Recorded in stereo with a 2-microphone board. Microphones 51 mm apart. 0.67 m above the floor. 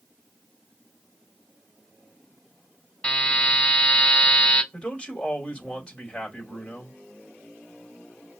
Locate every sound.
3.0 s a buzzer: 15° left (ahead or behind), 5 m
4.7 s a man speaking: 15° left (ahead or behind), 3 m